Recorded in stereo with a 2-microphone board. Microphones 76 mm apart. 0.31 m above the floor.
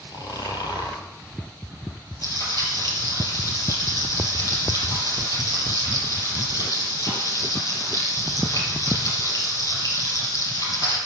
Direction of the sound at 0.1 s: 60° left (ahead or behind).